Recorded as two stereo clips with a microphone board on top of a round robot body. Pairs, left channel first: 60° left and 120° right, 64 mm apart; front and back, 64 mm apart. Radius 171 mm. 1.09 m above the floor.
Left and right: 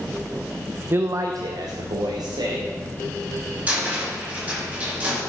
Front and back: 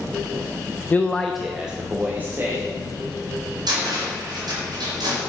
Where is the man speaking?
60° right, 0.6 m; by 2.7 s 120° right, 1.8 m.